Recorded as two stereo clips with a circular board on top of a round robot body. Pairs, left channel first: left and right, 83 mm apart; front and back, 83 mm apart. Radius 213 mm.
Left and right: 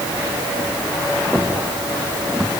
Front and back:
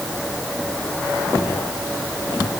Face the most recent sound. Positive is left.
No sound to turn to.